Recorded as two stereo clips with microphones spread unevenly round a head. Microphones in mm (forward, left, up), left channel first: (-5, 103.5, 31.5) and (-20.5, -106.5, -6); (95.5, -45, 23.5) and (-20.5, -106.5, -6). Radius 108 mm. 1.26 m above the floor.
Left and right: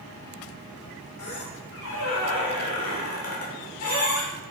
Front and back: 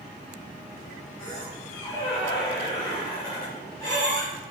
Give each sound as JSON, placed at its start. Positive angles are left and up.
{"t": 1.2, "sound": "a squeak", "azimuth_deg": 100, "distance_m": 3.0}